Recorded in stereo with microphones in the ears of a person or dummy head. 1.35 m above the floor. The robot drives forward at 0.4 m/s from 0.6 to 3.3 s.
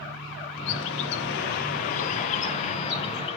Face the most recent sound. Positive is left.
turn(degrees=25)  # may be behind; listen again after turning